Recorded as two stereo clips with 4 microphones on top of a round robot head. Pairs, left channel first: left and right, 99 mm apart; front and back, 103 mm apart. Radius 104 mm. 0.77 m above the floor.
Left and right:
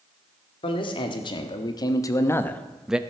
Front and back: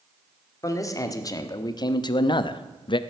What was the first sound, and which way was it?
A man speaking, 55° left.